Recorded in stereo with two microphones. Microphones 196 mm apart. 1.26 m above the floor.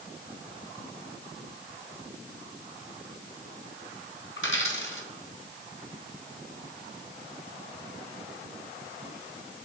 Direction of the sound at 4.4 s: 75° left (ahead or behind).